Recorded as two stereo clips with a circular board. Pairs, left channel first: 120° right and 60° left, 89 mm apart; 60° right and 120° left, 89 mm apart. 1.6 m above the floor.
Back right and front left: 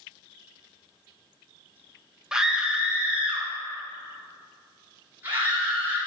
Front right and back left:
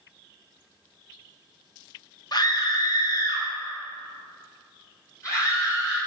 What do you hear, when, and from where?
2.3 s a scream: 25° right, 1.4 m; by 6.0 s 5° right, 4 m